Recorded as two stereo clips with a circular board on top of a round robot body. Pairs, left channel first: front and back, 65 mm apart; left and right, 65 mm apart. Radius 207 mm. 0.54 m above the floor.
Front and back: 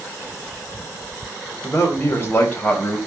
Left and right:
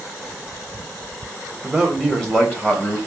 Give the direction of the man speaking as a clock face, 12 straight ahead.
1 o'clock.